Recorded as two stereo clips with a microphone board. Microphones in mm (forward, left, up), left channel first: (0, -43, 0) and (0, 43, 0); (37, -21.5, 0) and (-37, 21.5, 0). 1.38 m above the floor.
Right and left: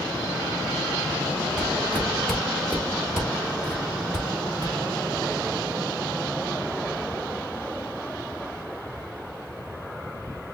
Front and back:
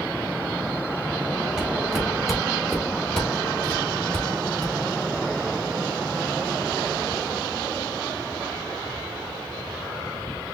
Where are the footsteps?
145° right, 1.4 m; by 4.7 s 25° left, 2.0 m.